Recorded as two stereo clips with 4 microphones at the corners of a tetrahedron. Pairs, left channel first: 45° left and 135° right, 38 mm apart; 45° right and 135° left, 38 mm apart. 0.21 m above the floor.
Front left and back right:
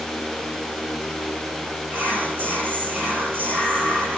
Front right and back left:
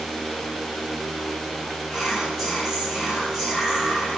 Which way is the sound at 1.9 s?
145° right.